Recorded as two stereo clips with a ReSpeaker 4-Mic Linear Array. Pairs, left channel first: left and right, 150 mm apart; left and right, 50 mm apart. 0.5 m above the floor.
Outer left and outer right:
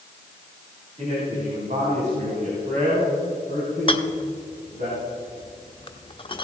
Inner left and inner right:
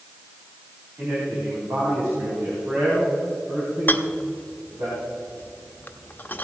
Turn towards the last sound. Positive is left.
turn(degrees=35)  # may be behind; listen again after turning